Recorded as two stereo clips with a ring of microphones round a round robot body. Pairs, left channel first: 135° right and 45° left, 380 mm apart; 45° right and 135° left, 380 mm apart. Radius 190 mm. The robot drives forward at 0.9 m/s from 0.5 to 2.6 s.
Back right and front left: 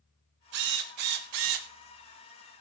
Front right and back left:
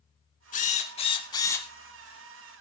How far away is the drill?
About 2.5 m.